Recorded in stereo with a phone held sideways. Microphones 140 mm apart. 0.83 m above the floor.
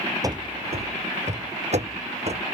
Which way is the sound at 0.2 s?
25° right (ahead or behind).